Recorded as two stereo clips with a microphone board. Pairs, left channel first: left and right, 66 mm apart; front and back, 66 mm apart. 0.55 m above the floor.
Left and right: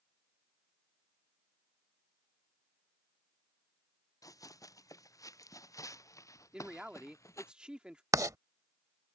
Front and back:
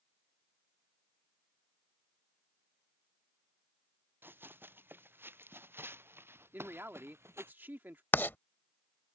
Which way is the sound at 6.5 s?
155° right.